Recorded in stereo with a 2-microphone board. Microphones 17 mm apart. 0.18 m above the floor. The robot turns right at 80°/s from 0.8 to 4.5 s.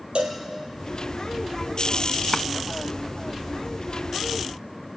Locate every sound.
0.1 s a cowbell: 80° right, 3 m
2.3 s a drawer: 50° left (ahead or behind), 0.5 m